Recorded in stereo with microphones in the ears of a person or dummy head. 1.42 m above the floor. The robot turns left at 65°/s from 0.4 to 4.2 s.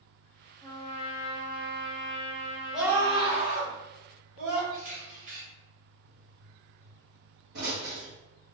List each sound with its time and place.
0.6 s a trumpet: 165° left, 0.7 m; by 3.5 s 20° right, 0.7 m
2.7 s a scream: straight ahead, 1.5 m; by 4.6 s 95° right, 1.5 m
4.7 s a camera shutter: 65° right (ahead or behind), 1.9 m
6.0 s a pop: 60° right (ahead or behind), 1.1 m